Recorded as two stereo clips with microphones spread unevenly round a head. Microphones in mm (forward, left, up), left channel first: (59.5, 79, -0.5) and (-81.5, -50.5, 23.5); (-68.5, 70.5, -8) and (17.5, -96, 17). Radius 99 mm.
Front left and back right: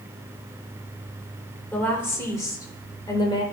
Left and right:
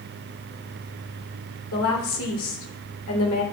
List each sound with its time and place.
1.7 s a woman speaking: 125° left, 3 m; by 3.4 s 110° left, 3 m